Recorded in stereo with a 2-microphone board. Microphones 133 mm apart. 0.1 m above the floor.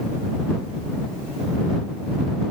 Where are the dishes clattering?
No dishes clattering in this recording.